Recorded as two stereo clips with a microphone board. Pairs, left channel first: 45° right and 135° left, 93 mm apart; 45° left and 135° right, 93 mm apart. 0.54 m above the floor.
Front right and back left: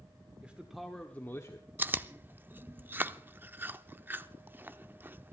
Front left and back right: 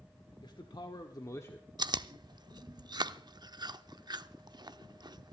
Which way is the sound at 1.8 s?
160° right.